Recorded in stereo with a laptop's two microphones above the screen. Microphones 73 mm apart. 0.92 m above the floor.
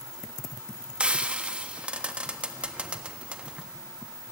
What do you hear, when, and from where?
1.0 s frying: 15° right (ahead or behind), 1.5 m